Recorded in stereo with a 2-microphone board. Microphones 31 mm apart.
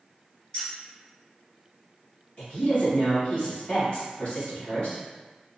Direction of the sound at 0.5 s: 35° left (ahead or behind).